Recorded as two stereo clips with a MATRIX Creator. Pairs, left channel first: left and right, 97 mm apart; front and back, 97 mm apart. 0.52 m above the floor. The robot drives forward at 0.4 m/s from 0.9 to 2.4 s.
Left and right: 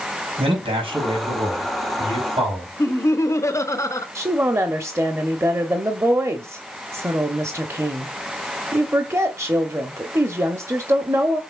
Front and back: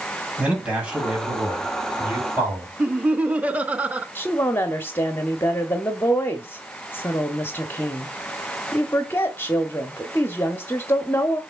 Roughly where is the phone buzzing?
No phone buzzing in this recording.